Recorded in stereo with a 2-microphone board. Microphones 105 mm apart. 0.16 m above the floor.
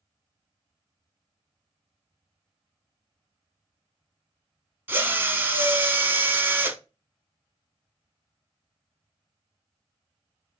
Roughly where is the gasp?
I don't hear a gasp.